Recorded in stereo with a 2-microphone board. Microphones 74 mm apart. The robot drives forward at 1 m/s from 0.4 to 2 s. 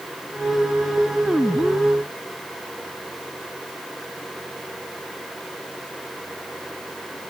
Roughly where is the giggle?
No giggle in this recording.